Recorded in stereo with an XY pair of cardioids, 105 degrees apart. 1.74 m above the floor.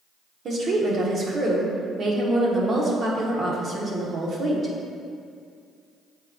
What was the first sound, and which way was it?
A woman speaking, 45° right.